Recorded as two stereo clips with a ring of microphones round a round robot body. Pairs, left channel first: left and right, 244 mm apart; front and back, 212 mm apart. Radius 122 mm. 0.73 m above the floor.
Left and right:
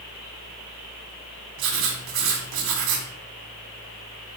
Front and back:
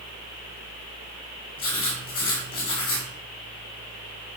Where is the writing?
70° right, 1.9 m.